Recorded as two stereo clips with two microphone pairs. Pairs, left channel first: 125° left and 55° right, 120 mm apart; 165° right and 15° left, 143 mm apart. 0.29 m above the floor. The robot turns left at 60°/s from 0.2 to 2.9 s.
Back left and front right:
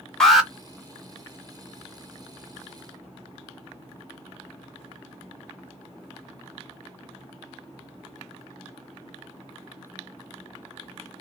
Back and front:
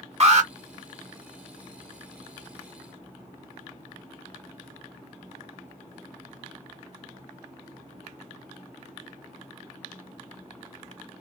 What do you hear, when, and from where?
0.2 s an alarm: 40° left, 1.1 m; by 0.5 s 25° left, 1.1 m